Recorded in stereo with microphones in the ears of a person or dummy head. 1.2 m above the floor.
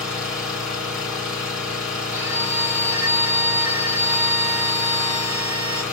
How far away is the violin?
About 1.4 m.